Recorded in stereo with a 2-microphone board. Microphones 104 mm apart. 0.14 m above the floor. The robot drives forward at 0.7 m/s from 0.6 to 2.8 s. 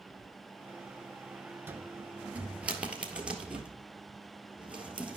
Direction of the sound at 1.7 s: 20° right (ahead or behind).